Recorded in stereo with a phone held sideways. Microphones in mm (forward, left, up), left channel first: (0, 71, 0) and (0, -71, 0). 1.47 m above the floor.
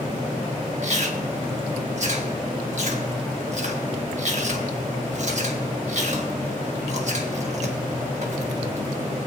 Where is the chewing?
55° right (ahead or behind), 1.4 m.